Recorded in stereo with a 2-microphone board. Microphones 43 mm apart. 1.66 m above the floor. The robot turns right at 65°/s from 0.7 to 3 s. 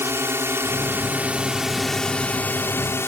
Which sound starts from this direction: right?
A drone, at 0.0 s.